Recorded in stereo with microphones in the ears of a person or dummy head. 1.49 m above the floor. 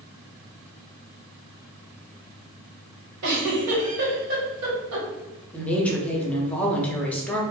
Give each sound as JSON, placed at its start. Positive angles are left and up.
{"t": 3.2, "sound": "a giggle", "side_deg": -75, "distance_m": 1.2}
{"t": 5.5, "sound": "a woman speaking", "side_deg": 5, "distance_m": 0.6}